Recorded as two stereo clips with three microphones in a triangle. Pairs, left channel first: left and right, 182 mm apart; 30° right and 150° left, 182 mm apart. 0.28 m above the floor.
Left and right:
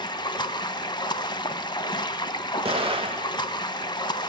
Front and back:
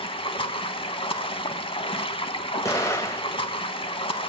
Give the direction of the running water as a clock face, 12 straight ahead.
11 o'clock.